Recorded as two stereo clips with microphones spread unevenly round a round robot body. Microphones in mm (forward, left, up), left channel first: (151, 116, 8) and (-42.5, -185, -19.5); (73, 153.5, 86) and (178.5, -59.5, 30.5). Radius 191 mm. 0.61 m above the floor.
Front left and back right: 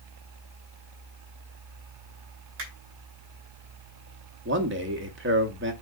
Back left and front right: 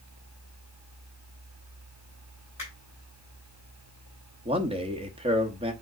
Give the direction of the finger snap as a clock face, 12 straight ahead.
5 o'clock.